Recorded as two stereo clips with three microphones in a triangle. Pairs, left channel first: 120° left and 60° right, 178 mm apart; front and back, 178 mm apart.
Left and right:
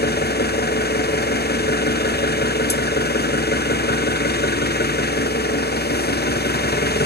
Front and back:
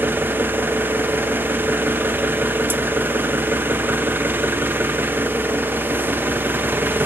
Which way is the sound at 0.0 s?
100° left.